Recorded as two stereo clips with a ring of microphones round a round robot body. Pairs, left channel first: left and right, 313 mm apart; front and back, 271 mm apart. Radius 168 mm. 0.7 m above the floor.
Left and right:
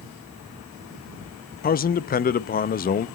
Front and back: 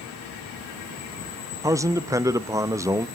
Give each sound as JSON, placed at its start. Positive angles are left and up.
{"t": 1.6, "sound": "a man speaking", "azimuth_deg": 110, "distance_m": 0.6}